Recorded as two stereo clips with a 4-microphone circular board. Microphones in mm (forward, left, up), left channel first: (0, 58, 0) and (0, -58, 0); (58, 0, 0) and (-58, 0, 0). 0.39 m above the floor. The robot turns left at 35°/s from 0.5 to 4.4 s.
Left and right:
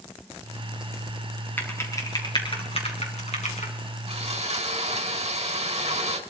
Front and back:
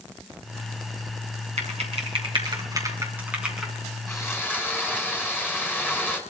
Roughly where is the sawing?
Ahead right.